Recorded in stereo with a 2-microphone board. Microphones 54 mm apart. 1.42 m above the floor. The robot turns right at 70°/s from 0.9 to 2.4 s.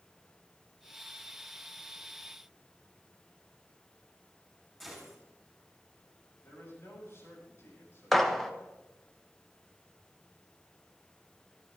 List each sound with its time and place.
4.8 s a gunshot: 5° left (ahead or behind), 6.5 m
6.4 s a man speaking: 55° left (ahead or behind), 8 m
8.1 s a gunshot: 5° left (ahead or behind), 1.3 m